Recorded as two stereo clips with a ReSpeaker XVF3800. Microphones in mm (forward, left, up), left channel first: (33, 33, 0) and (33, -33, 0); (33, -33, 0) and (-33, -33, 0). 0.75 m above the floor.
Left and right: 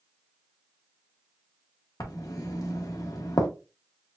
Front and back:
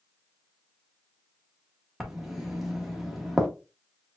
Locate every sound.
2.0 s writing: 95° left, 1.1 m